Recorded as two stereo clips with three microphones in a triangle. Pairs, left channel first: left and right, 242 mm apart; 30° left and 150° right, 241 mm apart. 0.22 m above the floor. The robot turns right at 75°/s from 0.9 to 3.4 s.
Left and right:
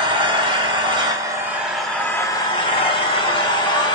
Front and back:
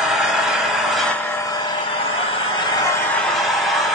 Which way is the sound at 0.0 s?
65° right.